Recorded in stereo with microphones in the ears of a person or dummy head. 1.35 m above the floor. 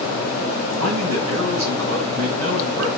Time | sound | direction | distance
0.8 | a man speaking | 75° right (ahead or behind) | 3 m